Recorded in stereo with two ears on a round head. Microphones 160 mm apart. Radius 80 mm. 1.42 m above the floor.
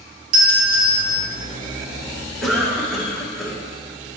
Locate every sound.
0.3 s a doorbell: 50° right (ahead or behind), 2 m
2.4 s a cough: centre (ahead or behind), 1.5 m